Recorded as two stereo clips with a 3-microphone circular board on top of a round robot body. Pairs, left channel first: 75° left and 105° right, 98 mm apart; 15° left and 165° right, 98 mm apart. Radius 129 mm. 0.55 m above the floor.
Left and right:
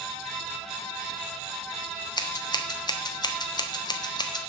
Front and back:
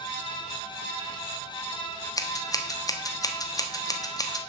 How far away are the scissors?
About 1.4 m.